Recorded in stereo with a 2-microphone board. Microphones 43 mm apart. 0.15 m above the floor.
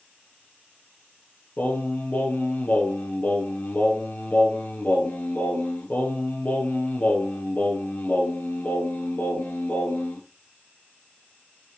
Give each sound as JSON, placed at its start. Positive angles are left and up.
{"t": 1.6, "sound": "singing", "side_deg": 40, "distance_m": 1.8}